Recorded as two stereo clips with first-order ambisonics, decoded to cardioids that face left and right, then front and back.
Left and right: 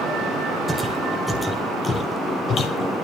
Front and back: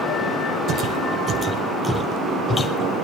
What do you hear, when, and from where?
0.7 s footsteps: 165° right, 2 m; by 2.9 s 60° left, 2 m